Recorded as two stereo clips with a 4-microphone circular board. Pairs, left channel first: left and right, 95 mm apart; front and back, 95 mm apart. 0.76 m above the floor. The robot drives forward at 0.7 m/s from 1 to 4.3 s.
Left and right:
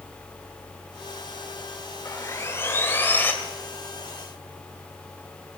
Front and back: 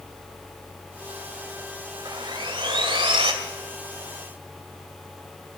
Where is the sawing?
145° left, 1.4 m; by 3.3 s 160° left, 2 m.